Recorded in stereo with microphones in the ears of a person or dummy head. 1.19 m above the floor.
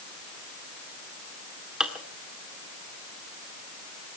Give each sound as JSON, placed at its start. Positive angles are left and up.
{"t": 1.8, "sound": "dishes clattering", "side_deg": -5, "distance_m": 2.0}